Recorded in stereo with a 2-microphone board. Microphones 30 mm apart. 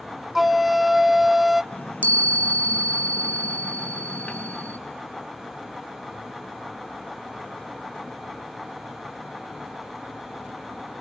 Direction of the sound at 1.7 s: 60° left (ahead or behind).